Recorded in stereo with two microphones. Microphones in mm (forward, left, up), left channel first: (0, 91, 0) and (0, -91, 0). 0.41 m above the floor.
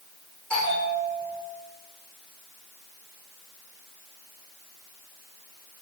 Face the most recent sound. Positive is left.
turn(degrees=5)  # may be behind; listen again after turning